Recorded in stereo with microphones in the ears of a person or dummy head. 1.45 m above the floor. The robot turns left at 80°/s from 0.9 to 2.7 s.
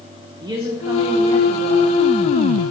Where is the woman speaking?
160° right, 1.0 m; by 2.0 s 115° left, 1.0 m.